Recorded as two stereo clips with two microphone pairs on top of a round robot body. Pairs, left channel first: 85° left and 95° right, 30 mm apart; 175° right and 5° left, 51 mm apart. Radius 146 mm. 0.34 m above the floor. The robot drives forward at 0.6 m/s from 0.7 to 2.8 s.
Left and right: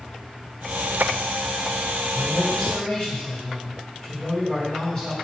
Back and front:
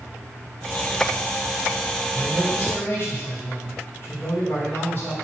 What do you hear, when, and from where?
2.1 s a man speaking: 135° left, 4 m; by 5.2 s 140° left, 4 m